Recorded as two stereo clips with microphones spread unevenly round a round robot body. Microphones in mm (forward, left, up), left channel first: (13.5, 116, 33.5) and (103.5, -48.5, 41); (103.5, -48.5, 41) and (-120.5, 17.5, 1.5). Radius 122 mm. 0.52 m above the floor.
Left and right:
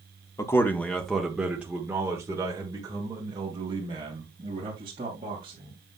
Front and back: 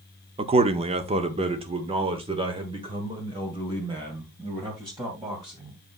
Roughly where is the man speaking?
Behind.